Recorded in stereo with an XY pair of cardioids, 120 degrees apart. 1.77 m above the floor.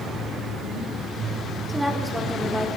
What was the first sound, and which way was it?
A woman speaking, 5° right.